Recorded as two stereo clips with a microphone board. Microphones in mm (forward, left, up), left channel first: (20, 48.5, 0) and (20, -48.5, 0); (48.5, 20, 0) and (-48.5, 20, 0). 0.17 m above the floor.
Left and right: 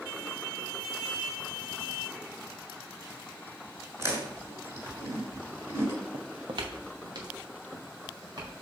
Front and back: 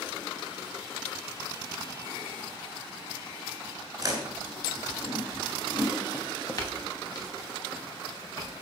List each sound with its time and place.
4.0 s chewing: 140° right, 1.9 m
6.1 s footsteps: 65° right, 0.9 m; by 8.5 s 45° right, 4.5 m